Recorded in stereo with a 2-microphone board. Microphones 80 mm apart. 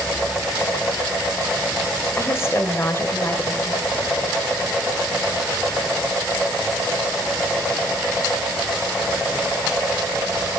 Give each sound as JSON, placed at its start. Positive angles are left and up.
{"t": 2.2, "sound": "a woman speaking", "side_deg": 35, "distance_m": 1.0}